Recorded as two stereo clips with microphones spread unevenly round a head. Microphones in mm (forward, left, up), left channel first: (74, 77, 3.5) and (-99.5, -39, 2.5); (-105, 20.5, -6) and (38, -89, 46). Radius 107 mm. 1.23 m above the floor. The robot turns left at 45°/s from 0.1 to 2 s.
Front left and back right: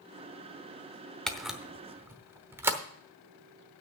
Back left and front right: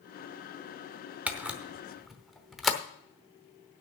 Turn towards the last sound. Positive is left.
turn(degrees=-85)